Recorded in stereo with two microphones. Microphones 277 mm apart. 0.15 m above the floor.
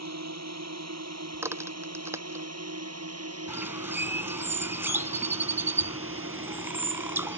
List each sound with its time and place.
0.0 s a drone: 70° right (ahead or behind); by 7.4 s 45° right (ahead or behind)
1.3 s a crack: 10° right (ahead or behind)
3.5 s a bird: 10° right (ahead or behind)